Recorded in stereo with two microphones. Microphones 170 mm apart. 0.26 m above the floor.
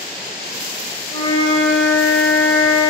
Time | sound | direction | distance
1.1 | a flute | 15° left (ahead or behind) | 0.6 m